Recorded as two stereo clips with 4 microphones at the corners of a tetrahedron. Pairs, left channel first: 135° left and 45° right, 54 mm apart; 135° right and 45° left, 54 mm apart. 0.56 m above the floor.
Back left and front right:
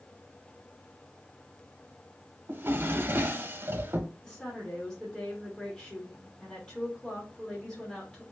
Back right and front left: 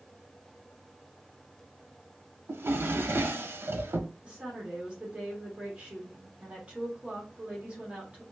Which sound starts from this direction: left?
A woman speaking, at 4.2 s.